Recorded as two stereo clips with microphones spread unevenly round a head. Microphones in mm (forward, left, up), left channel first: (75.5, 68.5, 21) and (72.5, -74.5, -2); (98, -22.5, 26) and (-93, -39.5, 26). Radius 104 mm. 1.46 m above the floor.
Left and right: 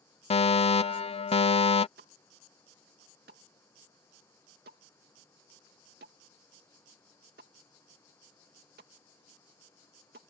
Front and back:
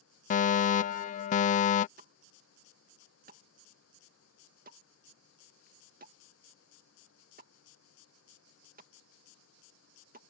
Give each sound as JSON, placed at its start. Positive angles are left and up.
{"t": 0.3, "sound": "a fire alarm", "azimuth_deg": 45}
{"t": 2.0, "sound": "a pop", "azimuth_deg": -130}